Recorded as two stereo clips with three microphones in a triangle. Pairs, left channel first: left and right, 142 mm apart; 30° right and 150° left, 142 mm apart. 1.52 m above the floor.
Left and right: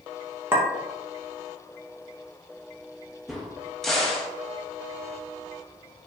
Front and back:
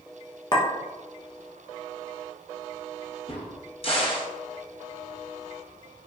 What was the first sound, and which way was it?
A clink, 35° right.